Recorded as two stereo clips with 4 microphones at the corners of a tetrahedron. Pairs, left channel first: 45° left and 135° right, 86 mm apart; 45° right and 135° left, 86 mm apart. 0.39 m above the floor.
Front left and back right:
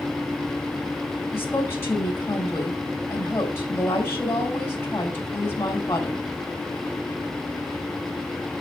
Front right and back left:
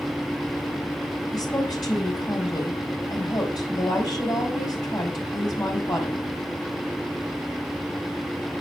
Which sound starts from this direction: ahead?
A woman speaking, at 1.3 s.